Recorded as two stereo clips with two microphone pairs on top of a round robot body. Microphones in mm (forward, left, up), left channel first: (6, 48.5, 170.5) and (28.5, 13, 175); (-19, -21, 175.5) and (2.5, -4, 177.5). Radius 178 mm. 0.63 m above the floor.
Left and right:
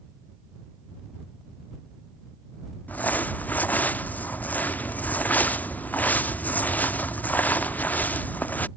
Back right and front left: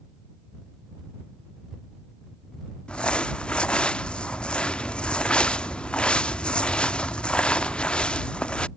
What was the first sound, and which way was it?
Crumpling, 170° left.